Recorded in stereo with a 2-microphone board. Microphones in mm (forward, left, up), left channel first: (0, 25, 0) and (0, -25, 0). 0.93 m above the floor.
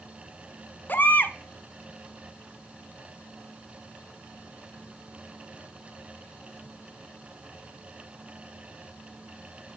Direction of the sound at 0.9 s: 40° left (ahead or behind).